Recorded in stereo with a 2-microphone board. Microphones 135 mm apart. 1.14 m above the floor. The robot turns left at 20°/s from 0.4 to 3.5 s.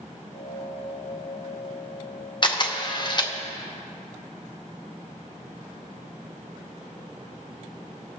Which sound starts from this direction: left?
A camera shutter, at 2.4 s.